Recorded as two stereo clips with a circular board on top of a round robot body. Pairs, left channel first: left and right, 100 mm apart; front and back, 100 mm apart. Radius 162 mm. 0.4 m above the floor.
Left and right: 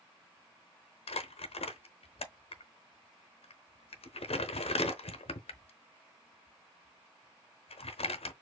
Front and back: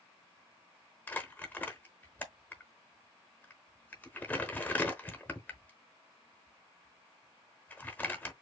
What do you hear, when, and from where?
1.1 s crumpling: 75° left, 0.8 m